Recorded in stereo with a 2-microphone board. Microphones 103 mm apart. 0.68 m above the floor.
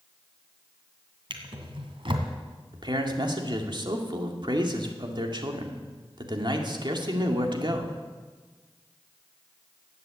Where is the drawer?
55° right (ahead or behind), 2.0 m.